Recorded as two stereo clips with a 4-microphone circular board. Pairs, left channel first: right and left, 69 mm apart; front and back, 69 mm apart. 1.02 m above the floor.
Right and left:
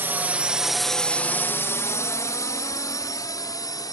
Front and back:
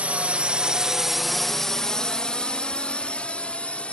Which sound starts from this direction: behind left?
A drone, at 0.0 s.